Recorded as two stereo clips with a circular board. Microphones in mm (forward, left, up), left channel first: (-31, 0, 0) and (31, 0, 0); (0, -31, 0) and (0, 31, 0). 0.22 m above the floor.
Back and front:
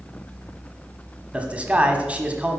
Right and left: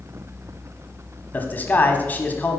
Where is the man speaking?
55° right, 1.2 m.